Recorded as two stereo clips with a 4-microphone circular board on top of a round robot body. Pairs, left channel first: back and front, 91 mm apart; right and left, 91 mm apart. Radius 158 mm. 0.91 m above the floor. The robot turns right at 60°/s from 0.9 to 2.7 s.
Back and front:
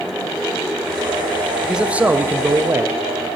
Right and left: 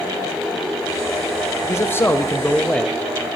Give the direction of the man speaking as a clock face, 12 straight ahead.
3 o'clock.